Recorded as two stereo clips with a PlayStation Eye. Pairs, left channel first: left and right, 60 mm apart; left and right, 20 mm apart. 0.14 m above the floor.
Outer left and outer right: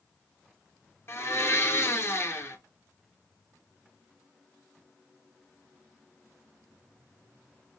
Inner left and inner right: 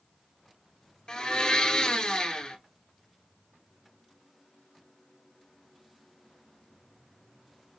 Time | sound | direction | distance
1.1 | a blender | 45° left (ahead or behind) | 1.8 m